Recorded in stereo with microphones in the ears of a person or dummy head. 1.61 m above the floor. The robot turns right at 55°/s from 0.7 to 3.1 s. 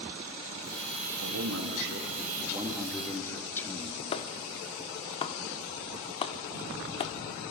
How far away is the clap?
About 0.8 m.